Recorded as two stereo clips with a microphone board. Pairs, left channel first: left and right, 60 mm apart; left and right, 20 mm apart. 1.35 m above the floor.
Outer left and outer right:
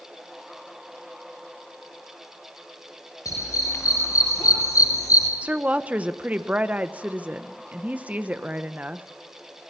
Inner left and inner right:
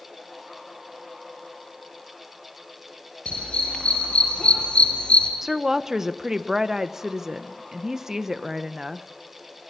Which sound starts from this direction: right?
A woman speaking, at 5.4 s.